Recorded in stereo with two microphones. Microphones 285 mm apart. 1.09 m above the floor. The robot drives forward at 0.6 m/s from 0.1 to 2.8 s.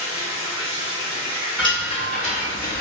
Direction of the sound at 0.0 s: 50° left (ahead or behind).